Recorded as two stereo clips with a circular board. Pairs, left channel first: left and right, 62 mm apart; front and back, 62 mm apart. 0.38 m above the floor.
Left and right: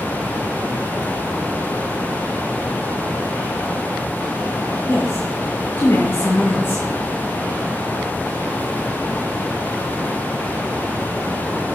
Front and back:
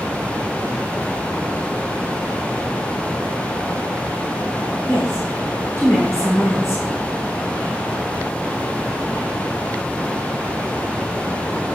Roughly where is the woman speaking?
Ahead left.